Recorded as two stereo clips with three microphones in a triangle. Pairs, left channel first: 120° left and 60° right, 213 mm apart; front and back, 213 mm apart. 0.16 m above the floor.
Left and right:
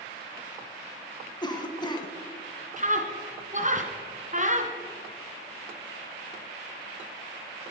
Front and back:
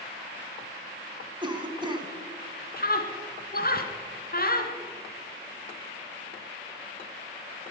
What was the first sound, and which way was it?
A cough, 150° left.